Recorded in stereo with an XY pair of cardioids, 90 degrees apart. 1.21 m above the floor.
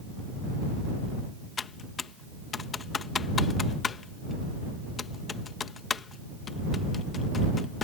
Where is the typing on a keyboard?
50° left.